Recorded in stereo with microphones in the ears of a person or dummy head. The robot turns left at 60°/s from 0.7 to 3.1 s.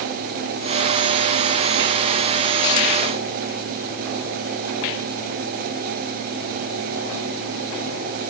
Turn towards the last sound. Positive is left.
No sound to turn to.